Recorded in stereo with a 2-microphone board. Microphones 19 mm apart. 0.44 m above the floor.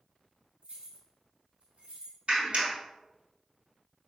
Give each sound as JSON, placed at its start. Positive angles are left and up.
{"t": 0.6, "sound": "keys jangling", "side_deg": -60, "distance_m": 3.0}
{"t": 2.3, "sound": "a clap", "side_deg": -65, "distance_m": 3.0}